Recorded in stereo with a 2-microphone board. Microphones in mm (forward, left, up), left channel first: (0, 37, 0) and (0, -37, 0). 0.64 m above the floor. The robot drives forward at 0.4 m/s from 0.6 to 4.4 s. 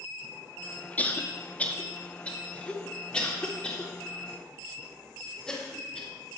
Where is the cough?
25° left (ahead or behind), 1.0 m; by 6.1 s 10° left (ahead or behind), 2 m.